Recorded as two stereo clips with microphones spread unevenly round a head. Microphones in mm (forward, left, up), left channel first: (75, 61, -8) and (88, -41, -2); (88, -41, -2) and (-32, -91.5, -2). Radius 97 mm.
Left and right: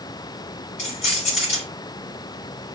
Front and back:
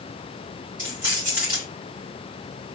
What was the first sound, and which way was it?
Keys jangling, 130° left.